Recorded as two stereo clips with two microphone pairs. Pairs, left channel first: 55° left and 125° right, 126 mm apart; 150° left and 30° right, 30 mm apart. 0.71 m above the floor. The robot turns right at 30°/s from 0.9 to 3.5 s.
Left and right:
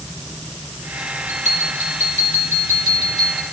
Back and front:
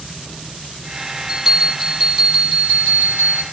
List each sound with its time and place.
1.3 s a bell: 120° right, 6.5 m; by 3.4 s 55° right, 6.5 m